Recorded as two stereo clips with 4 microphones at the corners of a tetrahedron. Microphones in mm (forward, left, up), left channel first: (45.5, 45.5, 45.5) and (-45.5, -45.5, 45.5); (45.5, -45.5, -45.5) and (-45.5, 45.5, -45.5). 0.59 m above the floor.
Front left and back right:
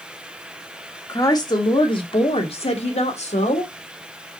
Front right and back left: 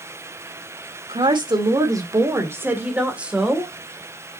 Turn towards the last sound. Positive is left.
turn(degrees=50)